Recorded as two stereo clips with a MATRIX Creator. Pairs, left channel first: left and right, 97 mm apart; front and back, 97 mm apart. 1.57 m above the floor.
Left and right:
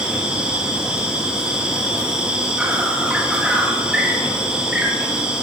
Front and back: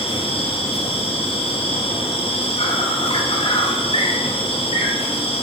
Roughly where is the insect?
Ahead.